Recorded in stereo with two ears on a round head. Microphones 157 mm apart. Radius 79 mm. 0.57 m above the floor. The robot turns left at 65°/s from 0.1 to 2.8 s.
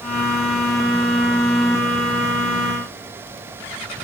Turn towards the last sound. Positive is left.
No sound to turn to.